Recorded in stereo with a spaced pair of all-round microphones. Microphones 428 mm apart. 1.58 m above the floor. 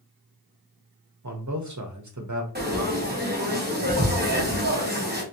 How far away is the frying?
About 0.9 m.